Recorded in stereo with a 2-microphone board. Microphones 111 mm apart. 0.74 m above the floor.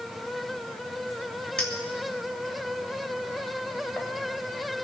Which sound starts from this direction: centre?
A clink, at 1.6 s.